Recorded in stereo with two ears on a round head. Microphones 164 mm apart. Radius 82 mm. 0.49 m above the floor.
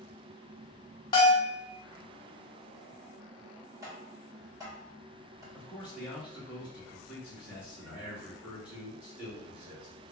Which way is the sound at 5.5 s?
10° right (ahead or behind).